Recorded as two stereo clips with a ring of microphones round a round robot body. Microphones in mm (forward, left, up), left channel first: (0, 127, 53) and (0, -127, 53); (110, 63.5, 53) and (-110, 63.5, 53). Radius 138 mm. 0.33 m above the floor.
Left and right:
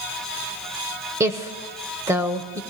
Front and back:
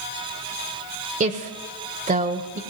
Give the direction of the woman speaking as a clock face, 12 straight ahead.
5 o'clock.